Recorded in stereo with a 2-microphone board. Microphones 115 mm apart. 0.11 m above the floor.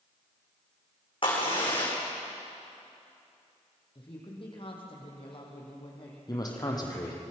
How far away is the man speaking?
About 4 m.